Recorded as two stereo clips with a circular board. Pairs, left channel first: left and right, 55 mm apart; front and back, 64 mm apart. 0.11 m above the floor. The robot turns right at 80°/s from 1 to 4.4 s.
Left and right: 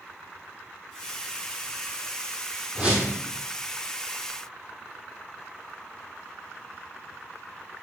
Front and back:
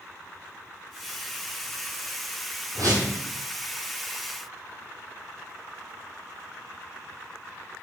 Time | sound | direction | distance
2.8 | a whoosh | 165° right | 1.4 m